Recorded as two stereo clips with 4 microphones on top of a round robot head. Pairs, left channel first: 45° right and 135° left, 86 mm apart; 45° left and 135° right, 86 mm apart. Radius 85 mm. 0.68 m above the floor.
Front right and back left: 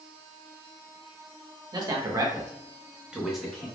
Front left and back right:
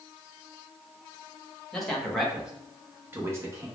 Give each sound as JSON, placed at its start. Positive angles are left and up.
{"t": 1.7, "sound": "a man speaking", "azimuth_deg": 125, "distance_m": 1.6}